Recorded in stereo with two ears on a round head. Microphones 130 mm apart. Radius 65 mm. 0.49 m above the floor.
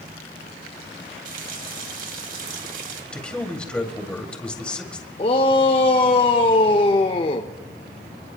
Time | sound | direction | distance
1.2 | a running tap | 65° right (ahead or behind) | 2 m
3.1 | a man speaking | 5° left (ahead or behind) | 2 m
5.2 | a shout | 35° left (ahead or behind) | 1.0 m